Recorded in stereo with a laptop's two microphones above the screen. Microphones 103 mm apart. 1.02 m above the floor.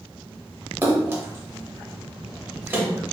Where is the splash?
20° right (ahead or behind), 0.6 m.